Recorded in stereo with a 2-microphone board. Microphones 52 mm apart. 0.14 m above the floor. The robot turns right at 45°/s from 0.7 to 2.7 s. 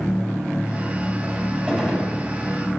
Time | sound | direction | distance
1.7 | a gunshot | 20° right (ahead or behind) | 1.9 m